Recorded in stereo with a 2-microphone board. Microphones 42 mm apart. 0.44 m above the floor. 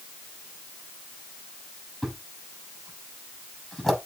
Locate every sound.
2.0 s a thud: 10° left (ahead or behind), 6 m